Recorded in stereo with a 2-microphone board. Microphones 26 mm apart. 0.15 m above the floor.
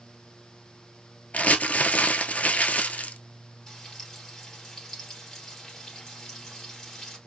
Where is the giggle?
I don't hear a giggle.